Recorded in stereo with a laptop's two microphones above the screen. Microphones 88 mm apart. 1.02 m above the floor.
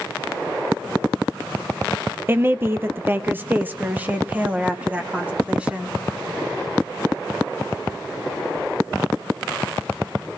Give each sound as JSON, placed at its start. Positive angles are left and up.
{"t": 2.3, "sound": "a woman speaking", "side_deg": -25, "distance_m": 0.7}